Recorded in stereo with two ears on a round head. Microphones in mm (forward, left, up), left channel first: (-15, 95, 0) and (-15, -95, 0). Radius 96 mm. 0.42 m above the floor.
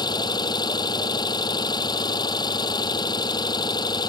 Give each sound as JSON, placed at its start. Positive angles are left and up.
{"t": 0.0, "sound": "an engine running", "side_deg": 20}